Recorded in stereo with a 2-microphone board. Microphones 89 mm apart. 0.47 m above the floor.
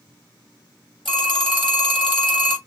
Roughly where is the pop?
No pop in this recording.